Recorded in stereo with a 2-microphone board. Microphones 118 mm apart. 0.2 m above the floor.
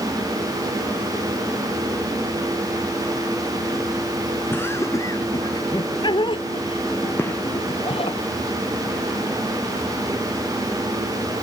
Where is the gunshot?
20° left (ahead or behind).